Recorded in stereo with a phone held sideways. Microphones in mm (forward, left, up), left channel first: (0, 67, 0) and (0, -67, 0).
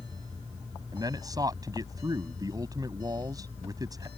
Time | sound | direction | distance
0.9 | a man speaking | 30° right (ahead or behind) | ?